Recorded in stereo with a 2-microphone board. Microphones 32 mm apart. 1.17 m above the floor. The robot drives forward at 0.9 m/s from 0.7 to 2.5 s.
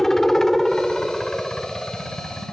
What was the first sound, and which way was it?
A helicopter, 15° left (ahead or behind).